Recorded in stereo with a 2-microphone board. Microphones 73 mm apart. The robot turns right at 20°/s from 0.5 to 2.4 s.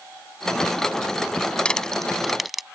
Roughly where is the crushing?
Centre.